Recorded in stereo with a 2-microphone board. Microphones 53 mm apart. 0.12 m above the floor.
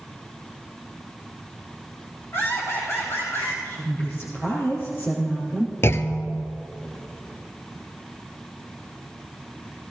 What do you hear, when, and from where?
2.3 s laughter: 50° left (ahead or behind), 6 m; by 3.5 s 65° left (ahead or behind), 7 m
3.6 s a woman speaking: 55° left (ahead or behind), 3.5 m
5.8 s a clunk: 50° left (ahead or behind), 0.7 m